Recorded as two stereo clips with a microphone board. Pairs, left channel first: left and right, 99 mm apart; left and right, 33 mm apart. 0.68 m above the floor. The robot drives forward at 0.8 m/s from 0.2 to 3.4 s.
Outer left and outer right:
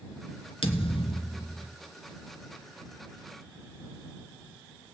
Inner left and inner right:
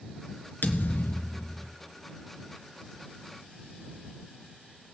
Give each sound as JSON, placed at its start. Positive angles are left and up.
{"t": 0.6, "sound": "a thud", "side_deg": 70, "distance_m": 1.5}